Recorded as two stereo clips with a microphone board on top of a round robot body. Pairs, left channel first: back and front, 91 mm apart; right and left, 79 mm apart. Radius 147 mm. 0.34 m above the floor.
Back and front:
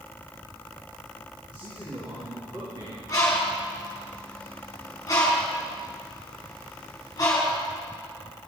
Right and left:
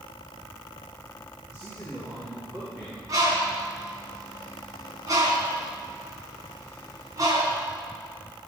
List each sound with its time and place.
1.5 s a man speaking: 35° left, 5 m
3.1 s a bird: 130° left, 3.5 m